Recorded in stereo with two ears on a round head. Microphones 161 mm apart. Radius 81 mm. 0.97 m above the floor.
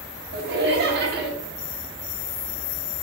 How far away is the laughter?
About 1.2 m.